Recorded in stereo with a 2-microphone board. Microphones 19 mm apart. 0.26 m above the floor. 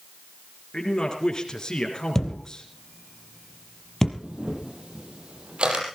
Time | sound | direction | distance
0.7 | a man speaking | 35° left (ahead or behind) | 3.5 m
2.1 | a thud | 20° left (ahead or behind) | 2.5 m
4.2 | a camera shutter | 60° right (ahead or behind) | 5.5 m